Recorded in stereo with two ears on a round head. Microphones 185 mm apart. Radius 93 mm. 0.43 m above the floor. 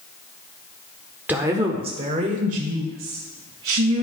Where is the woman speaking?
10° right (ahead or behind), 0.9 m; by 4.0 s 50° right (ahead or behind), 2.5 m.